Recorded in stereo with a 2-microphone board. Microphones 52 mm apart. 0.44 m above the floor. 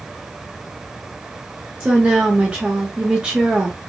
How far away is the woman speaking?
About 0.8 m.